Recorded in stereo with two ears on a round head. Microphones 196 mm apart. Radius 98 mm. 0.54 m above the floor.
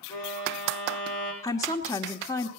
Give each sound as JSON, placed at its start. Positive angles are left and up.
{"t": 0.1, "sound": "a violin", "side_deg": 20, "distance_m": 7.5}
{"t": 1.4, "sound": "a woman speaking", "side_deg": 15, "distance_m": 1.3}